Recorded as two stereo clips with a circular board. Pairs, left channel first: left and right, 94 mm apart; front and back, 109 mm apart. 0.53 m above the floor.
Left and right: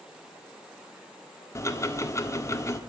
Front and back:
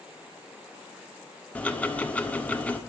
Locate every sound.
1.6 s ticking: 65° left, 1.3 m